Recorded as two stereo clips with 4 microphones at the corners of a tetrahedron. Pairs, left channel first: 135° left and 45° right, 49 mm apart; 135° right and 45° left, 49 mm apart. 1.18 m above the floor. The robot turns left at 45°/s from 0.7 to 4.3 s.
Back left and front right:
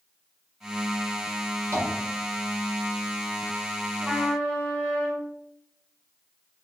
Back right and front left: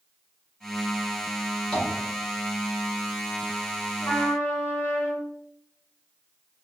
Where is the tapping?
60° right, 1.2 m; by 1.9 s 65° right, 1.2 m.